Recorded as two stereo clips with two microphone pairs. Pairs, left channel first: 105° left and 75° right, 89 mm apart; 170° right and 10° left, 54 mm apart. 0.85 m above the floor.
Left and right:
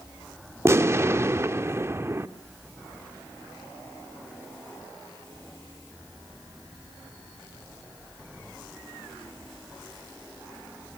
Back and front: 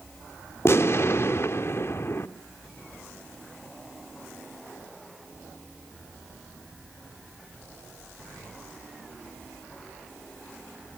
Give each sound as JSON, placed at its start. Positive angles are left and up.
{"t": 0.7, "sound": "an explosion", "azimuth_deg": -135, "distance_m": 1.0}